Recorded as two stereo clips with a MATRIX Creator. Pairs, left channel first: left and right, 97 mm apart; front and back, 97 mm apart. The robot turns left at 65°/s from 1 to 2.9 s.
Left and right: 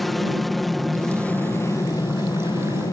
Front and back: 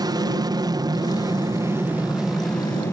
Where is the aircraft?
Straight behind; by 2.9 s 55° left.